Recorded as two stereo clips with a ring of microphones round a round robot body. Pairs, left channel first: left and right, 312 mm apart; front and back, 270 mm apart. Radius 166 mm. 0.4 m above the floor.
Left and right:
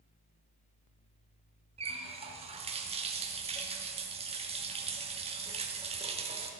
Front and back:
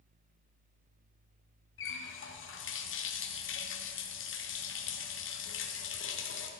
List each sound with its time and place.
1.8 s a running tap: 25° right, 1.0 m